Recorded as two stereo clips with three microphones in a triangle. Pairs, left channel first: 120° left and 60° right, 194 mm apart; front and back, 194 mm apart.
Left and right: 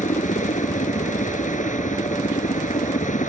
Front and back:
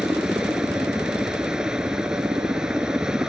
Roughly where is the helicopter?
Left.